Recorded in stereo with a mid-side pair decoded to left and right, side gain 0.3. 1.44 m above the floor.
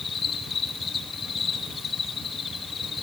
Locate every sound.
0.0 s an insect: 60° left, 2.5 m